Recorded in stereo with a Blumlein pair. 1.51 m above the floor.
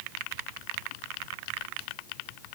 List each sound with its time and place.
Only background noise.